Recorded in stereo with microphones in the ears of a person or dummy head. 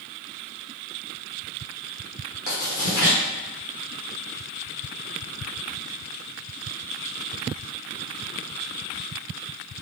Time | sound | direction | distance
2.5 | writing | 60° left (ahead or behind) | 1.0 m